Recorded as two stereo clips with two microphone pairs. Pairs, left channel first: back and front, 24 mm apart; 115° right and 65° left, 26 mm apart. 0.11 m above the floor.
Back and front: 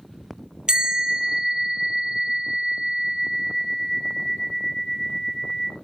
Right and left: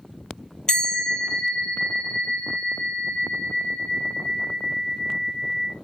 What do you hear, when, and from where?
0.7 s a bell: 55° right, 0.5 m